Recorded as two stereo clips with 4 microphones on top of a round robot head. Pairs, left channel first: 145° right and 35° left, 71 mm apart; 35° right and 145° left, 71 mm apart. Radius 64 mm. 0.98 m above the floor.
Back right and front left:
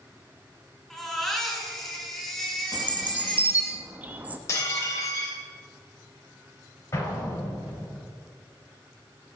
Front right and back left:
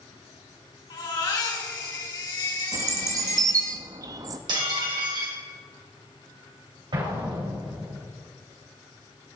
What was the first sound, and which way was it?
A baby crying, 60° right.